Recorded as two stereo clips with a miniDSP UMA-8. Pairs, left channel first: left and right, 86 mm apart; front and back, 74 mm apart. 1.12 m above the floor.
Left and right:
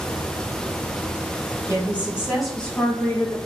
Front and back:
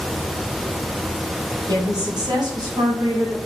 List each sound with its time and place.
1.7 s a woman speaking: 150° right, 1.9 m; by 3.4 s 135° left, 1.6 m